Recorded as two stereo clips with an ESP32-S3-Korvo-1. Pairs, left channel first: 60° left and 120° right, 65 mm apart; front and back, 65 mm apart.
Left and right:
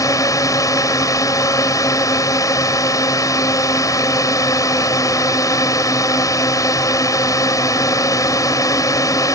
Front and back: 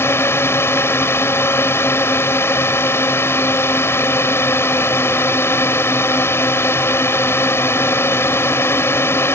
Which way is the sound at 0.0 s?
45° left.